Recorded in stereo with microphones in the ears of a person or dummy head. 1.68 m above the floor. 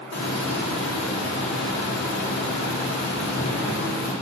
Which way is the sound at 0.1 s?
70° left (ahead or behind).